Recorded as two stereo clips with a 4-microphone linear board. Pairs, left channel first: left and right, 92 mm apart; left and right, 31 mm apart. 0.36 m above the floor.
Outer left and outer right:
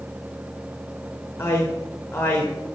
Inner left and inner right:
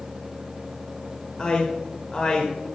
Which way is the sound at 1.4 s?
30° left (ahead or behind).